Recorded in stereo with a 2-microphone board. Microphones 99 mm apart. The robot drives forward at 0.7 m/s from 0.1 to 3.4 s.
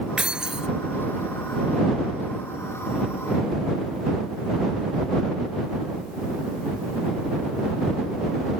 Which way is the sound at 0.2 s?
10° right (ahead or behind).